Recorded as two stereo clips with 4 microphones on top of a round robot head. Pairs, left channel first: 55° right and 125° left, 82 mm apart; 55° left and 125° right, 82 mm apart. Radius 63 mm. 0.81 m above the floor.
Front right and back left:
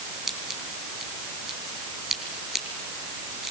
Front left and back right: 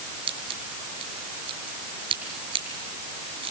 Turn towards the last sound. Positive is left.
turn(degrees=-145)